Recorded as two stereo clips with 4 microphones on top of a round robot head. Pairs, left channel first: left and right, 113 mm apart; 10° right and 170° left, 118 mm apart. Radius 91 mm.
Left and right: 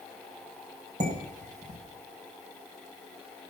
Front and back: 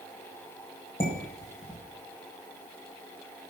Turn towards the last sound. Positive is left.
turn(degrees=-65)